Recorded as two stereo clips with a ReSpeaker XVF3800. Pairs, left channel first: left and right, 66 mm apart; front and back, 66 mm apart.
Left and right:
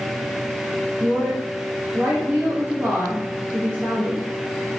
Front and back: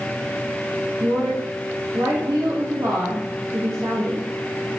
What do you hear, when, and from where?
1.0 s a woman speaking: 135° right, 0.8 m